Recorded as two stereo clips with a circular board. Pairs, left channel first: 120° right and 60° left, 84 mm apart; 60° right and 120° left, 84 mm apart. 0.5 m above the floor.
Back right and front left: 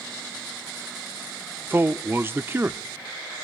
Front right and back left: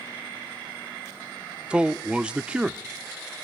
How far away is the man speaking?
About 0.8 m.